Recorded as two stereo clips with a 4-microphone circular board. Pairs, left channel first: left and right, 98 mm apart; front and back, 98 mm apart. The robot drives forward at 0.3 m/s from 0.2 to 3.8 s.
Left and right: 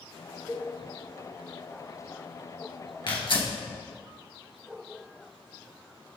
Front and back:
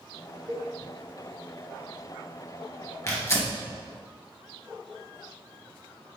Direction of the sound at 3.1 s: 65° left.